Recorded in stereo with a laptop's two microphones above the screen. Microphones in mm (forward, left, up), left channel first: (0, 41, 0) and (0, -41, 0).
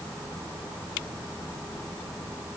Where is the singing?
I don't hear singing.